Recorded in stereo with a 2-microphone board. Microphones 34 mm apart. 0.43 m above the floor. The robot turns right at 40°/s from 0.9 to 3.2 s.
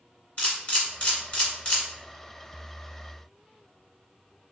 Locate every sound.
0.4 s a camera shutter: 35° left (ahead or behind), 1.4 m; by 1.8 s 25° left (ahead or behind), 1.4 m